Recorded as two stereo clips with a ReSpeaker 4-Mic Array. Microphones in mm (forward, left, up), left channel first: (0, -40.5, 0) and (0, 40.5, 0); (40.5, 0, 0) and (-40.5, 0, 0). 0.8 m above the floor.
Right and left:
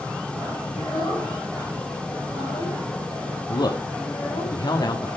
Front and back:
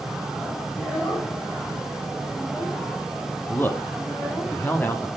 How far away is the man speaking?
About 1.5 m.